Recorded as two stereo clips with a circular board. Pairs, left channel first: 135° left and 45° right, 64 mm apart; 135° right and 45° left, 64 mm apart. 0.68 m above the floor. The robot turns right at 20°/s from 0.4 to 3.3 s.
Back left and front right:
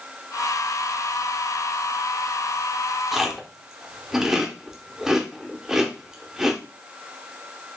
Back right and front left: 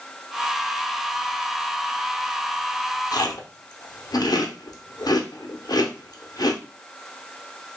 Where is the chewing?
130° right, 0.7 m.